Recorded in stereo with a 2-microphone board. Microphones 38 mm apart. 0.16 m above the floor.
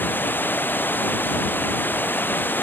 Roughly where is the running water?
Left.